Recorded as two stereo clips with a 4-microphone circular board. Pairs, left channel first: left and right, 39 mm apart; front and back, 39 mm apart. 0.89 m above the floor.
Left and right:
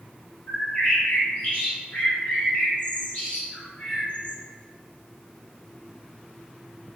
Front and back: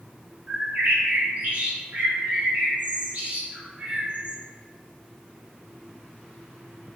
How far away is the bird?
About 1.0 m.